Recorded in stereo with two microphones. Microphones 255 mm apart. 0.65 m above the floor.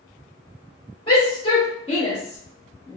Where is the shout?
20° left (ahead or behind), 1.1 m.